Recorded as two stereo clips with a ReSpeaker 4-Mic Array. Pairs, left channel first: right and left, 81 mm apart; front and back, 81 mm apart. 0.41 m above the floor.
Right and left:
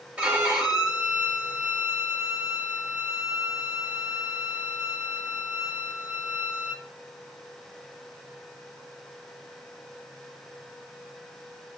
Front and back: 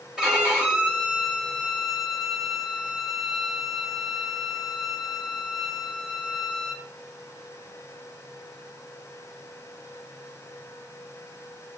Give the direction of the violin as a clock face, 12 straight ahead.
8 o'clock.